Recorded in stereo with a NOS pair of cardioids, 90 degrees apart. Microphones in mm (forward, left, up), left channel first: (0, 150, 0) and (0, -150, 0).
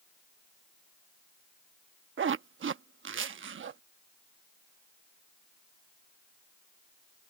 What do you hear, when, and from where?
2.2 s a zipper: 40° right